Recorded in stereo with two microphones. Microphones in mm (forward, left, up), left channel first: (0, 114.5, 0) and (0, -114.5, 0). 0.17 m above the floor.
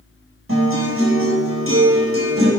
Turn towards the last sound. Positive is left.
turn(degrees=-60)  # may be behind; listen again after turning